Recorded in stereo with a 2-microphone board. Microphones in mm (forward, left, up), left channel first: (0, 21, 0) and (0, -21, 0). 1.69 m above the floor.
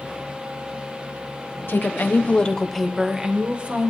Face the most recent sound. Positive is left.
turn(degrees=-35)  # may be behind; listen again after turning